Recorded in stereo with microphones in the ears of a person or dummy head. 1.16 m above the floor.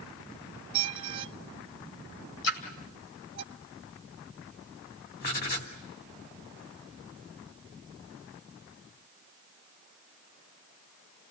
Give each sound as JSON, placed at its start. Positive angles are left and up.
{"t": 0.7, "sound": "a squeak", "side_deg": -30, "distance_m": 1.1}
{"t": 2.4, "sound": "a splash", "side_deg": 65, "distance_m": 2.5}
{"t": 5.2, "sound": "writing", "side_deg": 45, "distance_m": 2.5}